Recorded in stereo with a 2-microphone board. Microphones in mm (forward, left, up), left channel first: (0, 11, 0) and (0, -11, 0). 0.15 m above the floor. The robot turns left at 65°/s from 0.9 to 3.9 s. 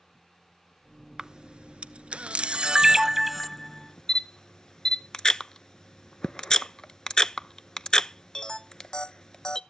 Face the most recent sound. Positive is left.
turn(degrees=30)  # may be behind; listen again after turning